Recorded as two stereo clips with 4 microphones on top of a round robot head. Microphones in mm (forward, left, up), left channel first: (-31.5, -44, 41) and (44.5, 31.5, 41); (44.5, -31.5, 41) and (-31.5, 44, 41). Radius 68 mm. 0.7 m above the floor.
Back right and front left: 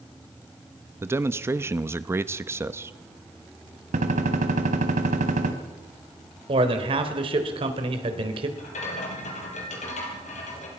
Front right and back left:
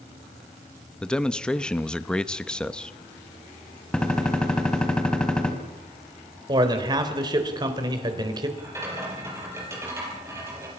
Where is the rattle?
155° right, 5 m.